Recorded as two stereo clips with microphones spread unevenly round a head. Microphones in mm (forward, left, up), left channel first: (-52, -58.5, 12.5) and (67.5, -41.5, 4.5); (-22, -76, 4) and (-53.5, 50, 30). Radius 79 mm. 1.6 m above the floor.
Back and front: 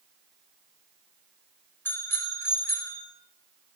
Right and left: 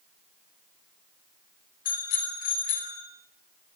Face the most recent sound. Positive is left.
turn(degrees=-100)